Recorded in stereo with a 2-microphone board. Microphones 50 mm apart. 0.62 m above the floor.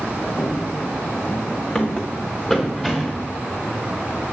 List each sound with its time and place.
0.4 s running footsteps: 45° left (ahead or behind), 1.6 m; by 3.3 s centre (ahead or behind), 3 m